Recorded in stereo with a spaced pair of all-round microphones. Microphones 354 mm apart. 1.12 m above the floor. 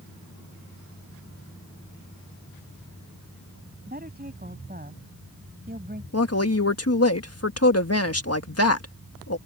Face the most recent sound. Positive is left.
turn(degrees=45)  # may be behind; listen again after turning